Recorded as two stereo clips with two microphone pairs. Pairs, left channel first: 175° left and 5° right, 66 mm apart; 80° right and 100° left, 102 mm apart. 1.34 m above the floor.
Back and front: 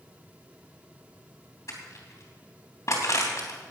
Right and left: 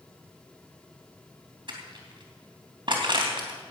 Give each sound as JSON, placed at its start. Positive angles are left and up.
{"t": 1.7, "sound": "crushing", "azimuth_deg": 140, "distance_m": 3.0}